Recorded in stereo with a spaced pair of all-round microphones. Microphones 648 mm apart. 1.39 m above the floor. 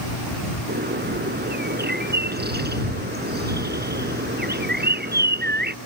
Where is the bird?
15° right (ahead or behind).